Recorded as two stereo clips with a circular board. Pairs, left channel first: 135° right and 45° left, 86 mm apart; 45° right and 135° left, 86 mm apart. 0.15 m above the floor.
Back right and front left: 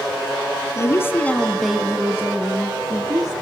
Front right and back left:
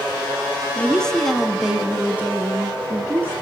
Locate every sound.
0.8 s a woman speaking: 115° right, 1.9 m; by 3.3 s 75° left, 3 m